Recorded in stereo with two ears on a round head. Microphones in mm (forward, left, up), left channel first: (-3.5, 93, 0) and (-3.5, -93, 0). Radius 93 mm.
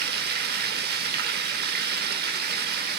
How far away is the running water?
About 0.8 m.